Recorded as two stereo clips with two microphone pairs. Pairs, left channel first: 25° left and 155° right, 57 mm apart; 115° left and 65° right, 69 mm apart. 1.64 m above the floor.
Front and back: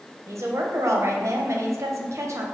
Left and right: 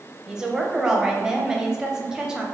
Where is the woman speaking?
145° right, 0.6 m.